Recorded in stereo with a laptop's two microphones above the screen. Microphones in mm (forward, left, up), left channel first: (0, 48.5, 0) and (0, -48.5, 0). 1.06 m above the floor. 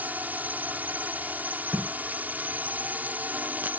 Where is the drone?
15° right (ahead or behind).